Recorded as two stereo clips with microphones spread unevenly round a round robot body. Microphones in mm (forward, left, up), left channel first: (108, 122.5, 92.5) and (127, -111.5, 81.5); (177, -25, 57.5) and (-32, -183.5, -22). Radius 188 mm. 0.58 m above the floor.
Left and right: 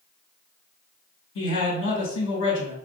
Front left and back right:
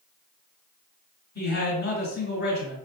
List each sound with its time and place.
1.4 s a man speaking: 105° left, 1.8 m